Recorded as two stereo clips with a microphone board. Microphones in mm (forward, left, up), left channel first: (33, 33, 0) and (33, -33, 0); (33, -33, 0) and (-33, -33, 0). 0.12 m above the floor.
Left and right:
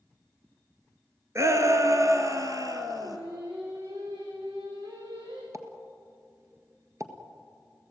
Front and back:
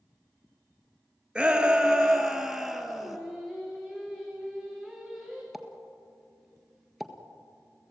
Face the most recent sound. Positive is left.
turn(degrees=-90)